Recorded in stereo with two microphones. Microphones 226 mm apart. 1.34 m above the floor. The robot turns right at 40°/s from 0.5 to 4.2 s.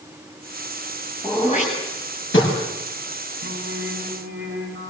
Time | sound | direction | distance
1.2 | throat clearing | 20° left (ahead or behind) | 9 m
3.4 | singing | 115° right | 6 m